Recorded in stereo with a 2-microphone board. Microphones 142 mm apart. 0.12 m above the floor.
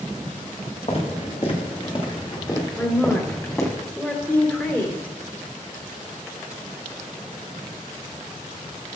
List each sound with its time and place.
0.9 s footsteps: 50° left (ahead or behind), 3 m; by 3.8 s 15° left (ahead or behind), 3.5 m
2.8 s a woman speaking: 10° left (ahead or behind), 2.5 m